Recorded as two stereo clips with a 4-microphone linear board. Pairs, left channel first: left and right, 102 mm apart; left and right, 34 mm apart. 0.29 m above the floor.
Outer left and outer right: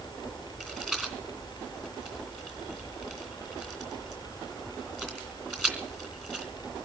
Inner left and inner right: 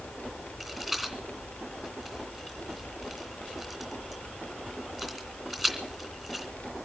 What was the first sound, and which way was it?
A rattle, 5° left (ahead or behind).